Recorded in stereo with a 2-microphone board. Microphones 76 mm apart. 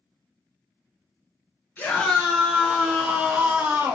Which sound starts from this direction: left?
A scream, at 1.8 s.